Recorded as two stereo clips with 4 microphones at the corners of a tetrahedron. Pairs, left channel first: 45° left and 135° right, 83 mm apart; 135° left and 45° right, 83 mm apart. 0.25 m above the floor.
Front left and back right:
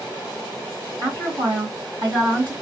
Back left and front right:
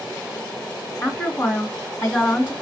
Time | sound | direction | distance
1.0 | a woman speaking | 165° right | 2 m